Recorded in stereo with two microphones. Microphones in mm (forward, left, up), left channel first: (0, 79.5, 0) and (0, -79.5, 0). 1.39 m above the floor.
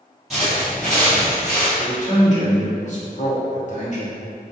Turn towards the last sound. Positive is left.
turn(degrees=50)  # may be behind; listen again after turning